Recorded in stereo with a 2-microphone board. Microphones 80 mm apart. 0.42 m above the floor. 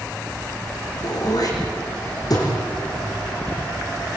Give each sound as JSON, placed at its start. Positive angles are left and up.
{"t": 1.0, "sound": "throat clearing", "side_deg": 55, "distance_m": 5.5}